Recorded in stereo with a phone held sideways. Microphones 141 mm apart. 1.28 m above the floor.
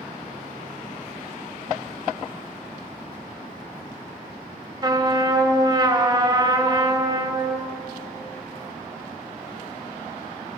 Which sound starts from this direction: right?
A trumpet, at 4.8 s.